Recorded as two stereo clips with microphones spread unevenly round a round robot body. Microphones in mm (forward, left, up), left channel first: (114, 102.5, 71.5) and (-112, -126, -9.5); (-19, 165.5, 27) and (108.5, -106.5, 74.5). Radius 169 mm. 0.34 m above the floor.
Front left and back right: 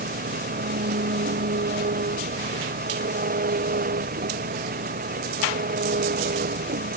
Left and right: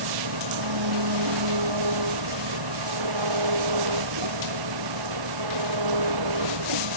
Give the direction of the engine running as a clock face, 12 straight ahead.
2 o'clock.